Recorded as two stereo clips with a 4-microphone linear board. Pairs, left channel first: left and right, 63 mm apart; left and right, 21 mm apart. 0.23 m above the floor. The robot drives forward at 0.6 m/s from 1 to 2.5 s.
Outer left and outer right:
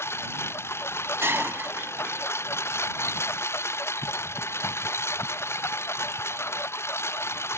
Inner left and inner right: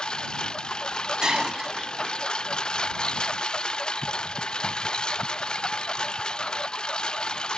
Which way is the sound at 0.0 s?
45° left (ahead or behind).